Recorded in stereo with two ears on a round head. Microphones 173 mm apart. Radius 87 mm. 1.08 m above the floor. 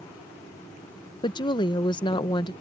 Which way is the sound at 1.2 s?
25° left (ahead or behind).